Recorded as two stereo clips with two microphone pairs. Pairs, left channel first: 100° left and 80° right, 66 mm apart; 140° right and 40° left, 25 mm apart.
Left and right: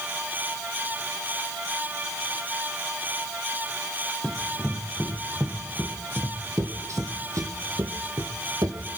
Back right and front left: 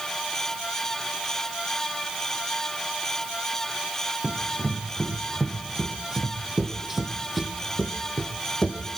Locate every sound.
4.2 s running footsteps: straight ahead, 4 m; by 8.8 s 80° right, 3 m